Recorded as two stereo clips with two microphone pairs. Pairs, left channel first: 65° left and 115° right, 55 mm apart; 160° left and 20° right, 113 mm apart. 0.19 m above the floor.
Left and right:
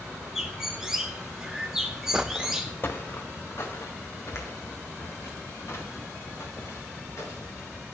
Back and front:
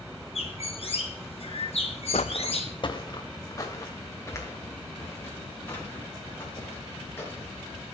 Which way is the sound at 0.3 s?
160° left.